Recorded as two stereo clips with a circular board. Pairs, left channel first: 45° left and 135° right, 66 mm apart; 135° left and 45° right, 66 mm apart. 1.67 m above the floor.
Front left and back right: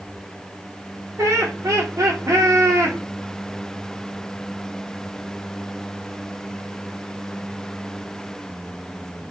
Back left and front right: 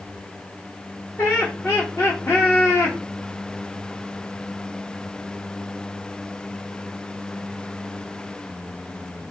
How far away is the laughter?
About 0.8 m.